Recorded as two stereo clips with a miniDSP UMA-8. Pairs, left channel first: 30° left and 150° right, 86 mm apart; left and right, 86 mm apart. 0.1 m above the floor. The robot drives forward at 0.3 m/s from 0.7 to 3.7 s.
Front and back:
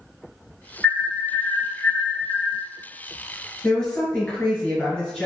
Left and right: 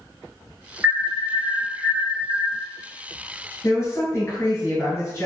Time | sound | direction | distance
0.8 | an alarm | 30° right | 1.3 m
3.6 | a woman speaking | 100° left | 1.6 m